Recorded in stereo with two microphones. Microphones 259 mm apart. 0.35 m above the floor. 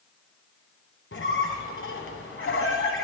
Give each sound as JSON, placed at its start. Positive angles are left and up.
{"t": 1.1, "sound": "a squeak", "side_deg": 50, "distance_m": 1.3}